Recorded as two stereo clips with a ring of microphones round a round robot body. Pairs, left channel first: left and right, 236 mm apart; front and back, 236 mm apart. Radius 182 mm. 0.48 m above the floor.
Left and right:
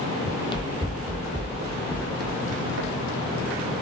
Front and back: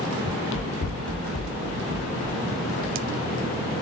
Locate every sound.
0.2 s running footsteps: 35° left, 0.8 m; by 3.6 s 65° right, 1.9 m